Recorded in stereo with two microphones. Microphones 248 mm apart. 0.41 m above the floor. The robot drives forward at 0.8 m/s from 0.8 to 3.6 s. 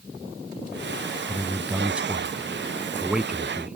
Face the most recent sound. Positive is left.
turn(degrees=-5)  # may be behind; listen again after turning